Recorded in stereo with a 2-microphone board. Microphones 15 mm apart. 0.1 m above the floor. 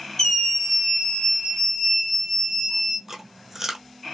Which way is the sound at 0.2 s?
30° left (ahead or behind).